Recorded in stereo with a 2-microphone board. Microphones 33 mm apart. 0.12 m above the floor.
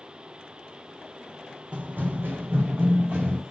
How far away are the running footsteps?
About 0.5 m.